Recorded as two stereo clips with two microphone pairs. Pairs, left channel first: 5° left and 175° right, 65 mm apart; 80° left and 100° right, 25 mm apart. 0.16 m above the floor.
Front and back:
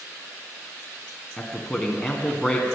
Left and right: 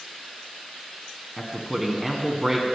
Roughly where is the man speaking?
Ahead right.